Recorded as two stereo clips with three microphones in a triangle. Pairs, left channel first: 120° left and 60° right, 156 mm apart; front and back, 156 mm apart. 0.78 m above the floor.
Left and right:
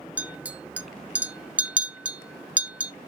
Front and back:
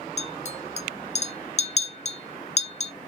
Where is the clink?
20° left, 0.6 m.